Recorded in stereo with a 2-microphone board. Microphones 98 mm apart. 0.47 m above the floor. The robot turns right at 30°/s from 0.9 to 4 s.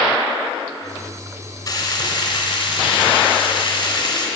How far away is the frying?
About 2.5 m.